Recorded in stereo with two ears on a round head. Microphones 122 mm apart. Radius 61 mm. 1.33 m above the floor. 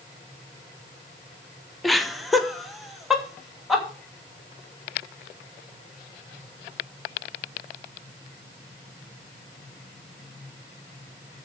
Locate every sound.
1.8 s laughter: centre (ahead or behind), 0.9 m